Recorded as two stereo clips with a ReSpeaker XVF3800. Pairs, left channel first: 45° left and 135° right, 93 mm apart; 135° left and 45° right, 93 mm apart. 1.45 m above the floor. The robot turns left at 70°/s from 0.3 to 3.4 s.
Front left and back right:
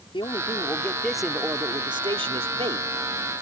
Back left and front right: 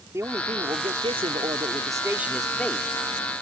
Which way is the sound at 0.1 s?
15° left.